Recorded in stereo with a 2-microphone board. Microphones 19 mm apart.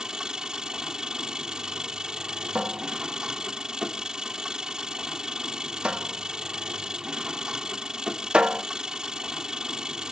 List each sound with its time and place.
0.0 s an engine running: 45° right (ahead or behind)
2.5 s a cupboard door: 80° right